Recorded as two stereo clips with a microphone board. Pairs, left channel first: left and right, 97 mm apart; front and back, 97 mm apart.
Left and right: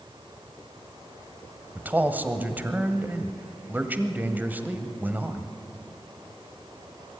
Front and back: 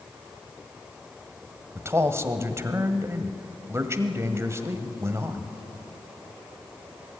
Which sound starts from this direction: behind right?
A man speaking, at 1.8 s.